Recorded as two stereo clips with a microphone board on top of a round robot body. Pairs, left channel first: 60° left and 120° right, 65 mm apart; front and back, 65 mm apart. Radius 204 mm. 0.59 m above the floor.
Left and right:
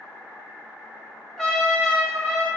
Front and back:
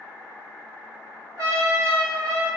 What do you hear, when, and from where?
1.4 s a trumpet: 140° left, 0.9 m